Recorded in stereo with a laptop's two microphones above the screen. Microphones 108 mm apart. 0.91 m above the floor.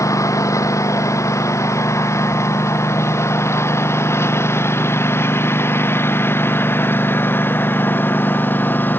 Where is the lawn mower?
25° left (ahead or behind); by 9.0 s 15° left (ahead or behind).